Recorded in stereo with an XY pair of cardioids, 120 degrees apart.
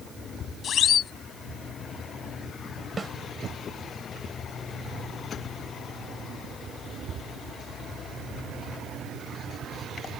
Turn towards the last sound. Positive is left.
turn(degrees=-20)